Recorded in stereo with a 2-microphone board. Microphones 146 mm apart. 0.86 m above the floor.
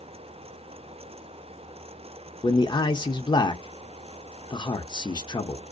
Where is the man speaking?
35° left (ahead or behind), 0.5 m.